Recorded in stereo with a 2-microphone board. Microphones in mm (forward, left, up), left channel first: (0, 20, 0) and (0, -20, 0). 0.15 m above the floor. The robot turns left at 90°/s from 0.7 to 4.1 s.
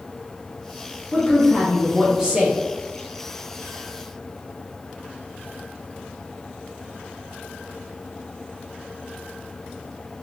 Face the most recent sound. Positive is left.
turn(degrees=150)